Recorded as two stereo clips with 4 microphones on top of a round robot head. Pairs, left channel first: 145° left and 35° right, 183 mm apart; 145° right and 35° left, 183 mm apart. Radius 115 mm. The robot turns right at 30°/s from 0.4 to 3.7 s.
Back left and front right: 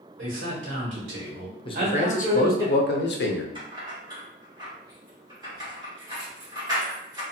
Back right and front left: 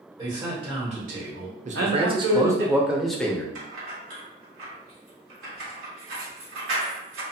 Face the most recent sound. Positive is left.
turn(degrees=35)